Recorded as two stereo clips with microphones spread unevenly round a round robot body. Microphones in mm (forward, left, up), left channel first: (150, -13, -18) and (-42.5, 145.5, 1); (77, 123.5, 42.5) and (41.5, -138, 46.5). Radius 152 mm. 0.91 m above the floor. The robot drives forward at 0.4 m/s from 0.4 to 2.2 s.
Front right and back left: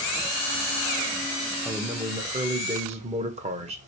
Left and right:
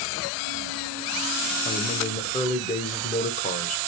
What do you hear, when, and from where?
1.6 s a man speaking: 50° left, 0.5 m; by 3.8 s 100° left, 0.5 m